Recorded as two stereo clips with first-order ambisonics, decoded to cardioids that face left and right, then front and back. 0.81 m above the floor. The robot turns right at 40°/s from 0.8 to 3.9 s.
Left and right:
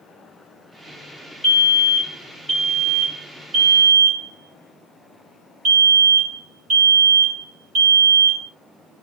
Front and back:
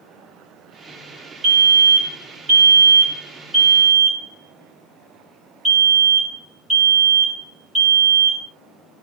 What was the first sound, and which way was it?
A fire alarm, 160° left.